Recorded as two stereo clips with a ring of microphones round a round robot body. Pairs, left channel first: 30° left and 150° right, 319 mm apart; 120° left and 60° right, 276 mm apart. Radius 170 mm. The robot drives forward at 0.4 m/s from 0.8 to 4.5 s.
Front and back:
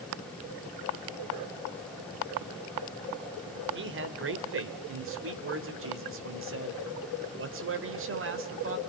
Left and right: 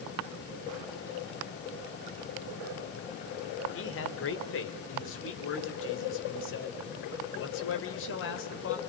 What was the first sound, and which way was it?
A man speaking, 160° left.